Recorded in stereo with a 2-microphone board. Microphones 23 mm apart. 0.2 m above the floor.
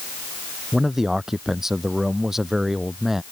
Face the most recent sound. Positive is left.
turn(degrees=-15)  # may be behind; listen again after turning